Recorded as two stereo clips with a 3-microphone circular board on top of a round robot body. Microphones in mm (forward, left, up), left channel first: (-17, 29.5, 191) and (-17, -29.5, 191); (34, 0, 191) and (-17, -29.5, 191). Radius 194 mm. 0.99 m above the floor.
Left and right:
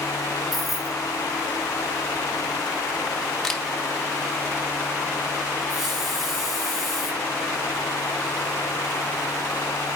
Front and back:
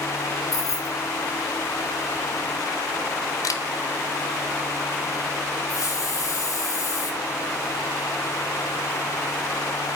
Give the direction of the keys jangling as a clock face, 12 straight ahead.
12 o'clock.